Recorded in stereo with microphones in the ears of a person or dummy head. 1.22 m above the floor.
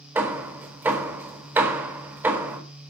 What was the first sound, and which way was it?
Hammering, 10° right (ahead or behind).